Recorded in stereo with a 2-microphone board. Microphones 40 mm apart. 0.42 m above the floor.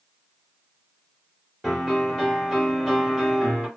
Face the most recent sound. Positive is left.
turn(degrees=5)  # may be behind; listen again after turning